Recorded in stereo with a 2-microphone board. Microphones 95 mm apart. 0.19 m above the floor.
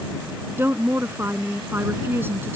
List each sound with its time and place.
0.6 s a woman speaking: 25° right (ahead or behind)